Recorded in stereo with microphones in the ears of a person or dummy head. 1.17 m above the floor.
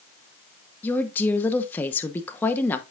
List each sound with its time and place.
0.8 s a woman speaking: 15° left (ahead or behind), 0.9 m